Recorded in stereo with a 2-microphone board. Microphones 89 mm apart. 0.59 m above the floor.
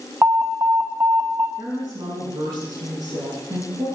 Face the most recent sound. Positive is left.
turn(degrees=-45)  # may be behind; listen again after turning